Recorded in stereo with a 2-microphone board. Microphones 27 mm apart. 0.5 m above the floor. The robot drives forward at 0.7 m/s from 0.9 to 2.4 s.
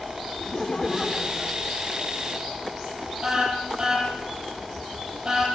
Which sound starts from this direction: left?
Laughter, at 0.4 s.